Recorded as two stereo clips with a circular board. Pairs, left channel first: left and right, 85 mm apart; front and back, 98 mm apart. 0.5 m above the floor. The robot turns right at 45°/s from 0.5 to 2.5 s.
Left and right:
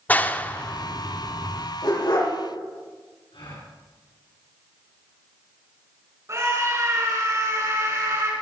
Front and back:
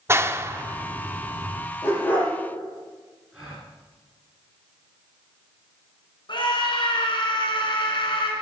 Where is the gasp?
100° left, 5.5 m.